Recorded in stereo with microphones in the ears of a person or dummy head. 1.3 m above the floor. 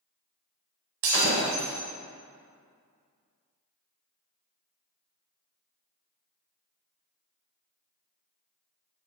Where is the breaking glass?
55° right (ahead or behind), 1.5 m.